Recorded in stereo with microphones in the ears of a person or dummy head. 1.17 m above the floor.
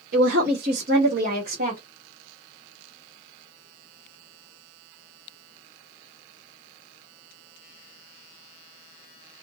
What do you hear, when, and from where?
0.1 s a woman speaking: 45° right (ahead or behind), 1.1 m; by 1.8 s 40° right (ahead or behind), 1.2 m